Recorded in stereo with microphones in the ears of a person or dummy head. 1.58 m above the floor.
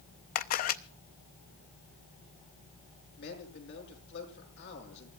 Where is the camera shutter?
50° left (ahead or behind), 0.5 m.